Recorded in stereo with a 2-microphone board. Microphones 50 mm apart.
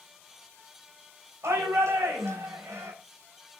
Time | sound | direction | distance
1.4 | a shout | 70° right (ahead or behind) | 4 m